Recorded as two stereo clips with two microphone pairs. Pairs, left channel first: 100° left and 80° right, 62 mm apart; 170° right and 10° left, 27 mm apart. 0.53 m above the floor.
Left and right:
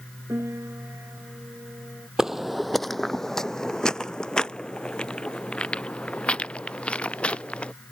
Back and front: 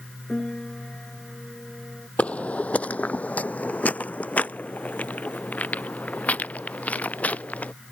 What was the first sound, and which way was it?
A piano, 120° right.